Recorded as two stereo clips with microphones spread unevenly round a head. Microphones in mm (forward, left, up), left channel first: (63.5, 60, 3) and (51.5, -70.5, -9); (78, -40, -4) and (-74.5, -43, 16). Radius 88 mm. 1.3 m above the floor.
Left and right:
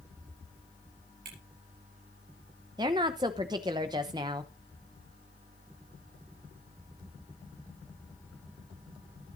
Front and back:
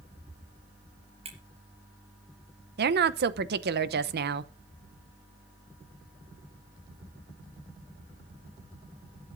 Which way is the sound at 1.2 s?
130° right.